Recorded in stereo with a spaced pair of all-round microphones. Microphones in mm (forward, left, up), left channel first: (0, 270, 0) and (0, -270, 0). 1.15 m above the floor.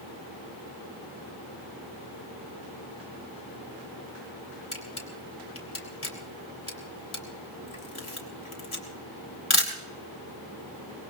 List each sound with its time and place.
4.7 s a camera shutter: 70° left (ahead or behind), 3 m